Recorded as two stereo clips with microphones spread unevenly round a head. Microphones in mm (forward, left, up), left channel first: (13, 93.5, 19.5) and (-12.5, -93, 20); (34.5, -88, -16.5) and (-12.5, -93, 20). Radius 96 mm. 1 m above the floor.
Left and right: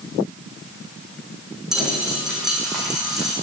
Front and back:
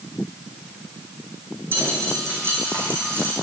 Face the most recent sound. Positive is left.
turn(degrees=175)